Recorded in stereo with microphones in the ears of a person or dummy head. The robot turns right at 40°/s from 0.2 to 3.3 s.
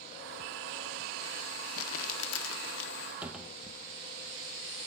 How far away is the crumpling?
About 1.1 m.